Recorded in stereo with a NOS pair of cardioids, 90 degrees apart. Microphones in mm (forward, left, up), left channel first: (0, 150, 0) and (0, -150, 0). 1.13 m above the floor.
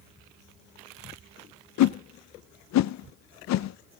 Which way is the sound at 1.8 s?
70° left.